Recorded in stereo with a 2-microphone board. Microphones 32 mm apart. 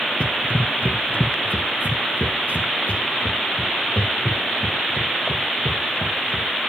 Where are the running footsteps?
45° left (ahead or behind), 0.7 m; by 6.5 s 85° left, 4 m.